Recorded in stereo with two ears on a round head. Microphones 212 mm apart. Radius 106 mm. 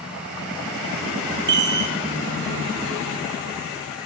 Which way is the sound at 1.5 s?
50° right (ahead or behind).